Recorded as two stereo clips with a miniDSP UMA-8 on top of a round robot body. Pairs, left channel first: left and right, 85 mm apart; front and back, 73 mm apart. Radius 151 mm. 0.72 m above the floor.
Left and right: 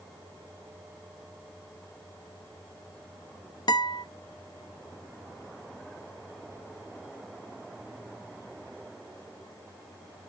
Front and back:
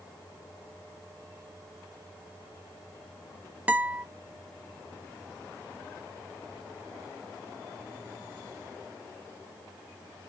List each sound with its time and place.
3.7 s a guitar: 110° left, 0.9 m